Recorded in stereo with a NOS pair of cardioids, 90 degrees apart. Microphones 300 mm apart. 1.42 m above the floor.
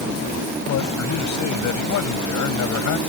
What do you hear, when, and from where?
0.7 s a man speaking: 65° left; by 3.0 s 75° left